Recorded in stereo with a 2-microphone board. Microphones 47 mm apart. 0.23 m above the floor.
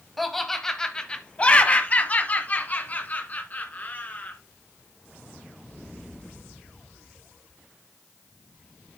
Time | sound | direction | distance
0.2 | laughter | centre (ahead or behind) | 1.0 m